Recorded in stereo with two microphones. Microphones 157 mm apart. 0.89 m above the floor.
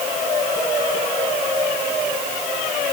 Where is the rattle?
I don't hear a rattle.